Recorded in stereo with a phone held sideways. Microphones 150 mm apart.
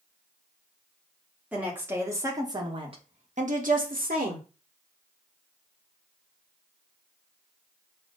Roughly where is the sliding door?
I don't hear a sliding door.